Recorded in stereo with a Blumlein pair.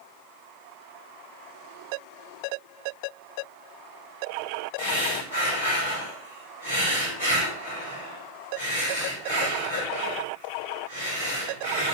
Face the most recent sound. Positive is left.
turn(degrees=55)